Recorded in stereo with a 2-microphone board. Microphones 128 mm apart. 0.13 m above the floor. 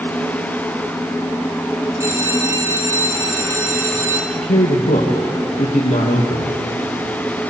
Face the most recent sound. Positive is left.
turn(degrees=75)  # may be behind; listen again after turning